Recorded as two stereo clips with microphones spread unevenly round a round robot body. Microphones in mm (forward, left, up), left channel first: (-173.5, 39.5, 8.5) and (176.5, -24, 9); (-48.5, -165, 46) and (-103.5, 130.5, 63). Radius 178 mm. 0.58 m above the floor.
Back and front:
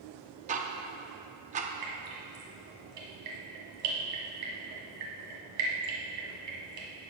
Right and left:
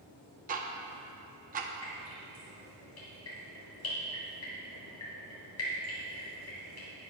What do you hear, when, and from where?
0.5 s ticking: 50° left, 0.7 m
1.8 s dripping: 30° right, 2 m